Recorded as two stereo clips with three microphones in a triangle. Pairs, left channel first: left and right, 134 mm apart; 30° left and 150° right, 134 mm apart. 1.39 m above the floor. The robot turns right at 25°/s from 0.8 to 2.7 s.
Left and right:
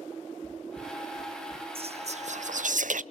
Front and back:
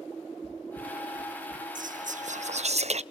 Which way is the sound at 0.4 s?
15° left.